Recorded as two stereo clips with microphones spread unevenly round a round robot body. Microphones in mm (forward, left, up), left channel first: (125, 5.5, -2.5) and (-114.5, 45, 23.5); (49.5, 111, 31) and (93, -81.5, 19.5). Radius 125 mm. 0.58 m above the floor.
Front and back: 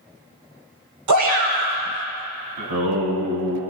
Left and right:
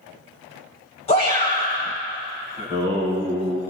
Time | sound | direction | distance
1.1 | a shout | 170° left | 3 m
2.6 | singing | 165° left | 4 m